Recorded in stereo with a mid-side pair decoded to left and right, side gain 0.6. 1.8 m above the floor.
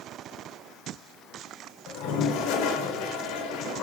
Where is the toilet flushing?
70° left, 1.6 m.